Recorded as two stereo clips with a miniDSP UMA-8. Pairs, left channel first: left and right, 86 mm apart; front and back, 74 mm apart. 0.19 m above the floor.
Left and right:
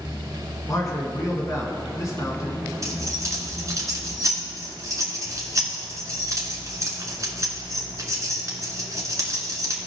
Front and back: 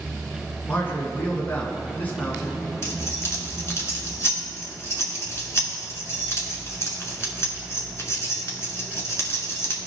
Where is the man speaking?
55° left, 1.7 m.